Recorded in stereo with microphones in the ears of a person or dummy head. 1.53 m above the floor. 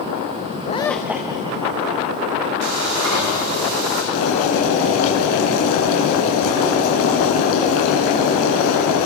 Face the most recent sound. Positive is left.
turn(degrees=75)  # may be behind; listen again after turning